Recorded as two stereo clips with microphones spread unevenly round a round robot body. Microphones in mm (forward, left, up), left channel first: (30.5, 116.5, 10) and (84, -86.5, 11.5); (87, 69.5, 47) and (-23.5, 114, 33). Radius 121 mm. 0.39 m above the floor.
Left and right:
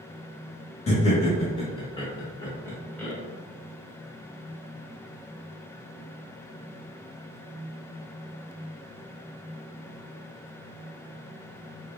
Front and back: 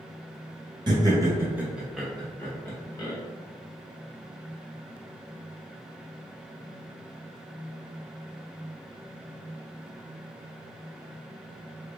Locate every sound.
0.9 s laughter: 150° left, 1.1 m; by 3.1 s 20° left, 1.1 m